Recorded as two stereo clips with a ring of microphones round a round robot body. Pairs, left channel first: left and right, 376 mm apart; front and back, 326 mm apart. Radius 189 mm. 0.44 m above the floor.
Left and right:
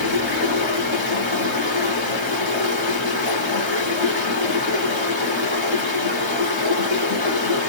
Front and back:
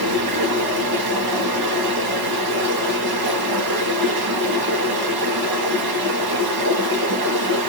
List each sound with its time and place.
0.0 s running water: 160° left, 1.4 m